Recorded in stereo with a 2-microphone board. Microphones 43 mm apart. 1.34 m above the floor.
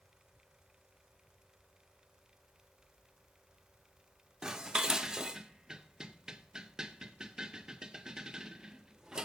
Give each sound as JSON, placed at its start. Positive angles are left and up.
{"t": 4.4, "sound": "dishes clattering", "side_deg": -15, "distance_m": 0.7}